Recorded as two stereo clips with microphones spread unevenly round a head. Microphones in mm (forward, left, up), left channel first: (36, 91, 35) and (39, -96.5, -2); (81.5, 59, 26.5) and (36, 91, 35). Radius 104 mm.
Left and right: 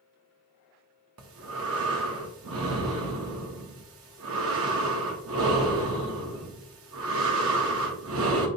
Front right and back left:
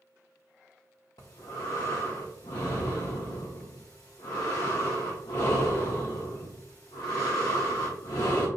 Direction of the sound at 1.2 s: 80° right.